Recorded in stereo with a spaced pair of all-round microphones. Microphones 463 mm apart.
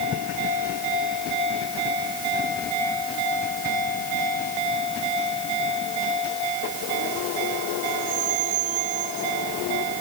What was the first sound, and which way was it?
Only background noise.